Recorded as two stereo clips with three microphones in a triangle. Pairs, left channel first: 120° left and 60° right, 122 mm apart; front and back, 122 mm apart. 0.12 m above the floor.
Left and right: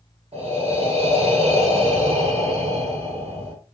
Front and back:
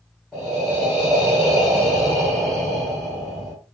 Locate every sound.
0.3 s breathing: 80° right, 1.9 m